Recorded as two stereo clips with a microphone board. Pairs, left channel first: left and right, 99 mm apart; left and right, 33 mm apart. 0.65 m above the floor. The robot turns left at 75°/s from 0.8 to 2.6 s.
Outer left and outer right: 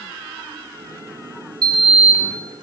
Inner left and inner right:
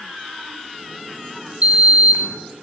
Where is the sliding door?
45° right, 0.7 m; by 2.4 s 105° right, 0.7 m.